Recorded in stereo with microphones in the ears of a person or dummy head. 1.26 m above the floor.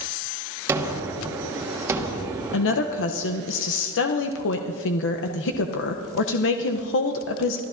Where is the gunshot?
15° right (ahead or behind), 1.4 m.